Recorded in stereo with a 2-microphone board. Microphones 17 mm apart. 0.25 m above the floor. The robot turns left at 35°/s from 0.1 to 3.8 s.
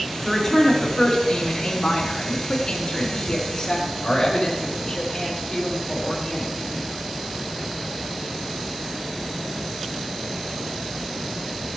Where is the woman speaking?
175° left, 3 m; by 6.8 s 50° left, 3 m.